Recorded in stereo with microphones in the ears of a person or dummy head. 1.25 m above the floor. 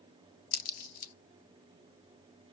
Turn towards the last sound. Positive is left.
turn(degrees=65)  # may be behind; listen again after turning